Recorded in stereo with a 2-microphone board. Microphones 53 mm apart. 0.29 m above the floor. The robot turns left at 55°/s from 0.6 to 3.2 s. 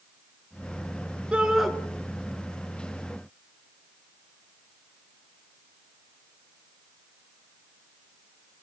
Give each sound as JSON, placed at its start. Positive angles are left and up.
{"t": 1.3, "sound": "a shout", "side_deg": -20, "distance_m": 4.0}